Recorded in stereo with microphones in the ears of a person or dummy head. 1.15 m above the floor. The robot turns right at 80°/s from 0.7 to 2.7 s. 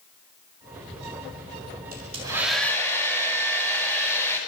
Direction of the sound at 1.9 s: 50° right.